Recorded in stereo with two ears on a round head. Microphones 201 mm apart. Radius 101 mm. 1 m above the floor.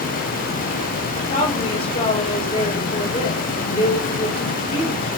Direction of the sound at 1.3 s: 30° left (ahead or behind).